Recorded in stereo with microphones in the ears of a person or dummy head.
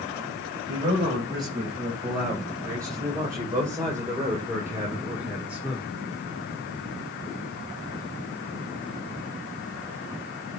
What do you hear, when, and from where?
0.7 s a man speaking: 25° right (ahead or behind), 6.5 m; by 5.9 s 5° right (ahead or behind), 3 m